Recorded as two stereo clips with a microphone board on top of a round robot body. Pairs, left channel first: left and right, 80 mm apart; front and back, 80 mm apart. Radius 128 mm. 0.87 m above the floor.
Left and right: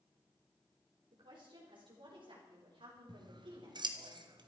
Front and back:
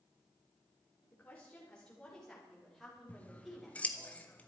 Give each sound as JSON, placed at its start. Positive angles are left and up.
{"t": 1.1, "sound": "a woman speaking", "azimuth_deg": -70, "distance_m": 3.5}
{"t": 3.1, "sound": "scissors", "azimuth_deg": -70, "distance_m": 1.5}